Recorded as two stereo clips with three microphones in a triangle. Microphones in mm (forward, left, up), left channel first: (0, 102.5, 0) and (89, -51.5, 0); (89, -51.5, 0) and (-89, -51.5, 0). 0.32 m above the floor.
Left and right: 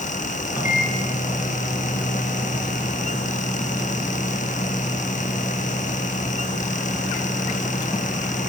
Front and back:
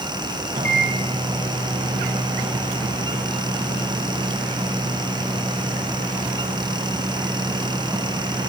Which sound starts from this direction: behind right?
A microwave, at 0.5 s.